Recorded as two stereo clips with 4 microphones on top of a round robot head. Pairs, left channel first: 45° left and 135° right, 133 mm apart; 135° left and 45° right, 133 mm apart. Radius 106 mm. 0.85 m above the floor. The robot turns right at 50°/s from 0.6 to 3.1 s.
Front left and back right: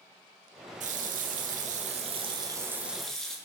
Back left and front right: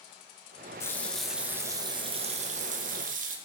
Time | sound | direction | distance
0.8 | a running tap | 155° right | 0.5 m